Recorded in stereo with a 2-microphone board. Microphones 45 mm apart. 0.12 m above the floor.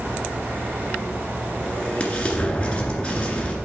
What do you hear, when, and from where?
1.6 s an explosion: 20° left (ahead or behind), 1.8 m